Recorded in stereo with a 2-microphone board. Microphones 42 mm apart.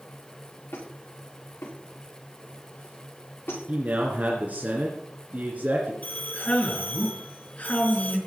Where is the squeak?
80° left, 9 m.